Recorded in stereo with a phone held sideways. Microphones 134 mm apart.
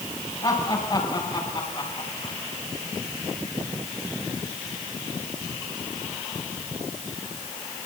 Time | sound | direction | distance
0.4 | laughter | 40° left (ahead or behind) | 8 m